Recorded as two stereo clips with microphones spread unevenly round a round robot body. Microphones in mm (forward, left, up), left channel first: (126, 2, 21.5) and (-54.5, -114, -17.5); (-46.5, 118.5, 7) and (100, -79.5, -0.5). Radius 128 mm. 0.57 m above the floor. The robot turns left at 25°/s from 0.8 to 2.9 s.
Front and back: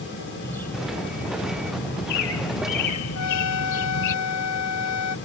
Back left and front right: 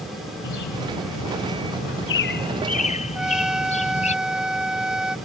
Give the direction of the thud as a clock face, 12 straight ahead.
No thud in this recording.